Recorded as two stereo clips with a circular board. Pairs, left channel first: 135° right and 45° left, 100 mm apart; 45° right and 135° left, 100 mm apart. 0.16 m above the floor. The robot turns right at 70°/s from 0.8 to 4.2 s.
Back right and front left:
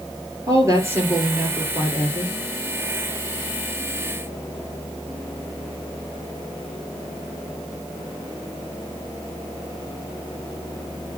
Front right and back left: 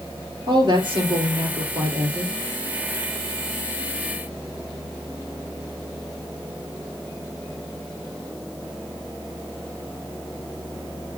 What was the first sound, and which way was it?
A woman speaking, 100° left.